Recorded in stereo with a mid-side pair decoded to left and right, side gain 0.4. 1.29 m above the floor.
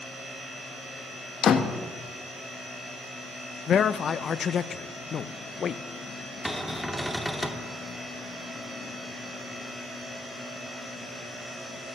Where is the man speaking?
60° left, 0.7 m.